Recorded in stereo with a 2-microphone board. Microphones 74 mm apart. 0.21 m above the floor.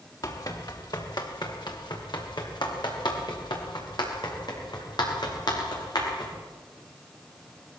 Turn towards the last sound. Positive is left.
turn(degrees=65)  # may be behind; listen again after turning